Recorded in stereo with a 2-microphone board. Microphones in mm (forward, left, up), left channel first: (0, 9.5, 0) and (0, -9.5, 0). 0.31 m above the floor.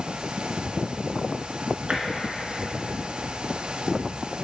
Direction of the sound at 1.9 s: 60° right (ahead or behind).